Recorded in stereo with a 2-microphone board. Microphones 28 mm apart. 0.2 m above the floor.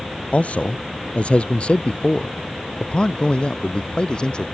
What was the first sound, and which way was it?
A man speaking, 55° left (ahead or behind).